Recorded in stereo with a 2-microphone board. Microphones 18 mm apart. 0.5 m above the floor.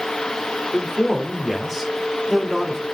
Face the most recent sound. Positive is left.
turn(degrees=-25)  # may be behind; listen again after turning